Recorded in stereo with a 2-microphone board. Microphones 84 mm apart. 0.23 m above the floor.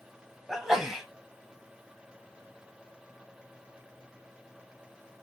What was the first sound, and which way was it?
A sneeze, 5° right (ahead or behind).